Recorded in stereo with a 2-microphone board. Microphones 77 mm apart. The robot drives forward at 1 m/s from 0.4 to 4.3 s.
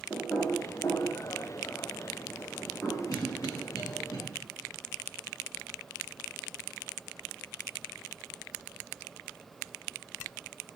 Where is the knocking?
30° left (ahead or behind), 1.9 m; by 3.0 s 15° left (ahead or behind), 4 m.